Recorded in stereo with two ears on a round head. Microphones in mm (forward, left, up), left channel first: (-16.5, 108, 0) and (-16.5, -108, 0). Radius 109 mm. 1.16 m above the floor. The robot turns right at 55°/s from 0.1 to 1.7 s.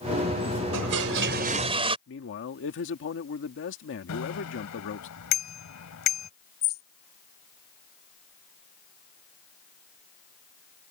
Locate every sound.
0.7 s a toilet flushing: 75° right; by 2.0 s 25° right
2.1 s a man speaking: 55° left (ahead or behind)
4.1 s a bicycle bell: 85° left
6.6 s a bird: 40° left (ahead or behind)